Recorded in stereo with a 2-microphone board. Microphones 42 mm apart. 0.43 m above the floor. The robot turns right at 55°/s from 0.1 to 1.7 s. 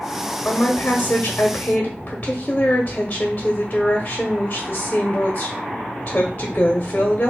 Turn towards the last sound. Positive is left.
turn(degrees=120)